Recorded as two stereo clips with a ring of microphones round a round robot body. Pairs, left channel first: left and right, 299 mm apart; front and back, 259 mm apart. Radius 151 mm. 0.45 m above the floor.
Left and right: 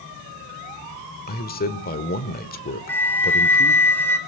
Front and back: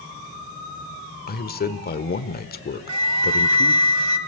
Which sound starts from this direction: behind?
A flute, at 2.9 s.